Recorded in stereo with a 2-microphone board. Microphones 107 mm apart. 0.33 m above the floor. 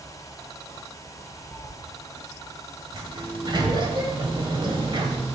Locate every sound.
1.5 s a cat meowing: 25° left (ahead or behind), 0.9 m
2.9 s a sliding door: 50° right (ahead or behind), 1.3 m